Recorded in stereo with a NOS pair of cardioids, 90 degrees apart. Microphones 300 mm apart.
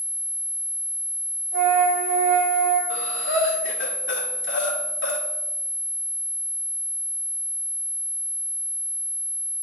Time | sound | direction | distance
1.5 | a flute | 60° right | 3.5 m
2.9 | breathing | 40° left | 1.7 m